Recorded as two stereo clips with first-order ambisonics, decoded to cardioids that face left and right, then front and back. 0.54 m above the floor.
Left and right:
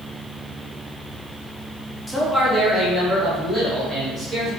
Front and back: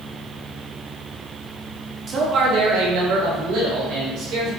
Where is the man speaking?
165° left, 0.6 m; by 4.5 s 170° right, 2 m.